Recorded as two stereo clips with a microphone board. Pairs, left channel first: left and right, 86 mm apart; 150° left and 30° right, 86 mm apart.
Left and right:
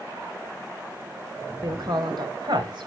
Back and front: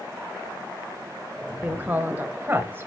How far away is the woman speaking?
About 1.9 m.